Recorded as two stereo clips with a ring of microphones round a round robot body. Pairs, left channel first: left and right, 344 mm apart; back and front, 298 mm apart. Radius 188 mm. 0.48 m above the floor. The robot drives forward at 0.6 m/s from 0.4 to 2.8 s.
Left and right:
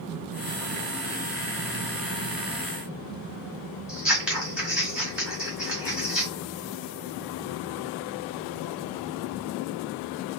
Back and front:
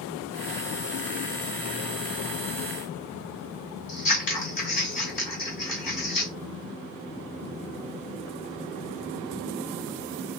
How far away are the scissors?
About 1.9 m.